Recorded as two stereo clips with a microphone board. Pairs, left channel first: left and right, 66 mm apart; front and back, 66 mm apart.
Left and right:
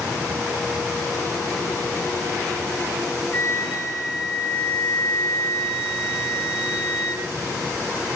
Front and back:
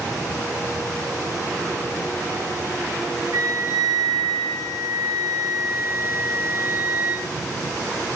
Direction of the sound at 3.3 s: 160° left.